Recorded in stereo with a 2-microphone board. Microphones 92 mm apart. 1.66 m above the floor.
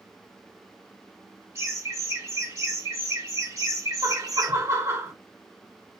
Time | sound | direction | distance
1.6 | laughter | 30° right (ahead or behind) | 3.5 m
4.0 | laughter | 30° right (ahead or behind) | 1.2 m